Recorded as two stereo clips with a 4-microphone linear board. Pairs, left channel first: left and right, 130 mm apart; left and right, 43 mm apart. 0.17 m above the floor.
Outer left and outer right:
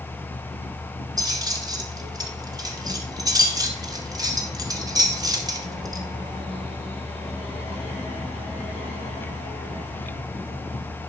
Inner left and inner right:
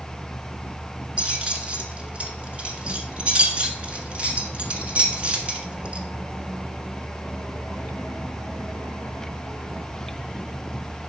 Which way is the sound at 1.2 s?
30° right (ahead or behind).